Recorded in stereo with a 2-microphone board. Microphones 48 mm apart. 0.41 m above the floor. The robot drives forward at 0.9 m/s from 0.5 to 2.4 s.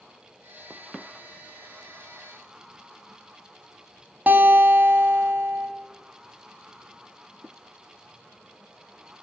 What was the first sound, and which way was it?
A guitar, 40° right (ahead or behind).